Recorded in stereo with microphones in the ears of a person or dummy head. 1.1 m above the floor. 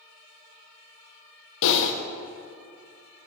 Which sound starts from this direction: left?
Typing on a keyboard, at 1.6 s.